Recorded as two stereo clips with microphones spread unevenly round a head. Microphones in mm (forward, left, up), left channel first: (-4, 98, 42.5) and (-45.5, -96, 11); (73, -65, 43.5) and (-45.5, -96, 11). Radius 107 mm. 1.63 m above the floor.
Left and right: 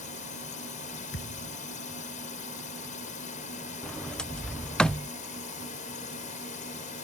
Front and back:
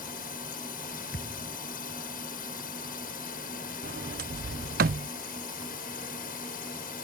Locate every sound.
0.0 s a drone: 20° left
1.1 s a thud: 45° left
3.8 s a sliding door: 160° left